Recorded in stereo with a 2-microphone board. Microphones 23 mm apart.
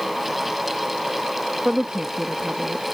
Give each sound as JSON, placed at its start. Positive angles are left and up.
{"t": 1.6, "sound": "a woman speaking", "side_deg": -45}